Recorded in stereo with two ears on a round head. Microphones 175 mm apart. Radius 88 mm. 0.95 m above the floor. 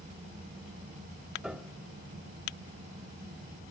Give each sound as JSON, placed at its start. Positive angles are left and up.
{"t": 1.4, "sound": "a piano", "side_deg": -5, "distance_m": 0.8}